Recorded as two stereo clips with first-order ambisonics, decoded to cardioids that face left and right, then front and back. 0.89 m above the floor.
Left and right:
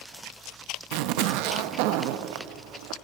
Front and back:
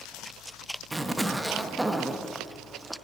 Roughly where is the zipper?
Right.